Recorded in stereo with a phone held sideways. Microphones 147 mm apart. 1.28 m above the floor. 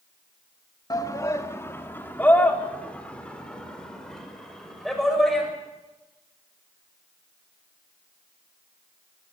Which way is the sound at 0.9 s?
25° left (ahead or behind).